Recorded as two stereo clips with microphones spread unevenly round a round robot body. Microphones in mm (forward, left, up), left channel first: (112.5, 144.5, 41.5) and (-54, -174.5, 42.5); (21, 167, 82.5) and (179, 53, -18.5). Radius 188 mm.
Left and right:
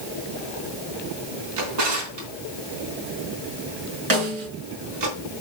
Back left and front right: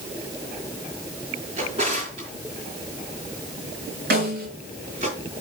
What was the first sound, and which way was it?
A drawer, 105° right.